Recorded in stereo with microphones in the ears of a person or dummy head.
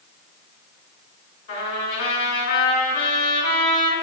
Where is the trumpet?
60° left (ahead or behind), 2 m.